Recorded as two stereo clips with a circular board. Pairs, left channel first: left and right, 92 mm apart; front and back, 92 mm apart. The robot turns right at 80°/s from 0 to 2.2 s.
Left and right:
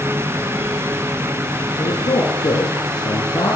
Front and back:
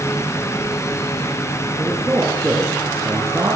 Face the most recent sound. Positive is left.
turn(degrees=110)